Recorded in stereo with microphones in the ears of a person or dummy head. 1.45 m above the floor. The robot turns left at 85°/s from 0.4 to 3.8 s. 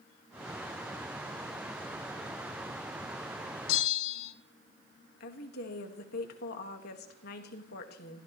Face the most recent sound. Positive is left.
turn(degrees=50)  # may be behind; listen again after turning